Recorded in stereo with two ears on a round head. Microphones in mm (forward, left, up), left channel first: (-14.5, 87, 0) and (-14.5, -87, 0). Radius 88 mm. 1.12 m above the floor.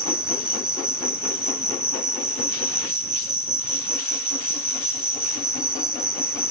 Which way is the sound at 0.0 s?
5° right (ahead or behind).